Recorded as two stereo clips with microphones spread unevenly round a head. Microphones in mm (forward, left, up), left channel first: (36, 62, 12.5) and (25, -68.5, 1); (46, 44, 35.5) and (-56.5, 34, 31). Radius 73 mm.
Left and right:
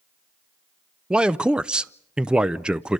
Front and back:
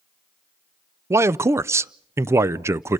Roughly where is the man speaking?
Behind.